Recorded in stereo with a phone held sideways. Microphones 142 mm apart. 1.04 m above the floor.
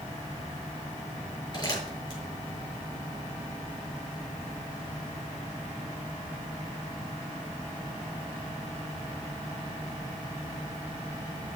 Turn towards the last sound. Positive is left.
turn(degrees=35)  # may be behind; listen again after turning